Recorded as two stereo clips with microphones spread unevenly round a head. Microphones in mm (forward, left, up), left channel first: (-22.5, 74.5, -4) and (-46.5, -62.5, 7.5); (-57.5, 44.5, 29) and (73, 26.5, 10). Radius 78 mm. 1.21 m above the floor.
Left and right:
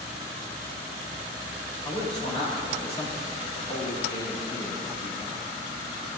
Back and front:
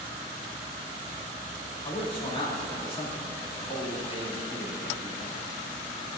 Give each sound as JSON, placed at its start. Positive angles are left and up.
{"t": 1.9, "sound": "a man speaking", "azimuth_deg": 125, "distance_m": 2.5}